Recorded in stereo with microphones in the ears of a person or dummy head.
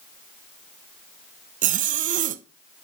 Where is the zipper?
45° right (ahead or behind), 0.9 m.